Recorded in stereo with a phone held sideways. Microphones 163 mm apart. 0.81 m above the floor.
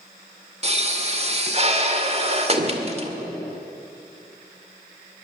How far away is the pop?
About 2.0 m.